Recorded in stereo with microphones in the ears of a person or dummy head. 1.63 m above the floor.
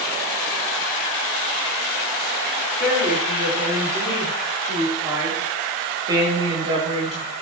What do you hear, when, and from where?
2.8 s a woman speaking: 10° right (ahead or behind), 5 m; by 7.3 s 35° right (ahead or behind), 2.5 m